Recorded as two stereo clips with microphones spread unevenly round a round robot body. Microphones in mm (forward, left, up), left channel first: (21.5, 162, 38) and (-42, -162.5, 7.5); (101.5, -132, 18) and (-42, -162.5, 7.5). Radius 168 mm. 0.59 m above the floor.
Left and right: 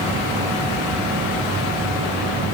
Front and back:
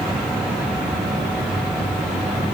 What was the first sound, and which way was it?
Only background noise.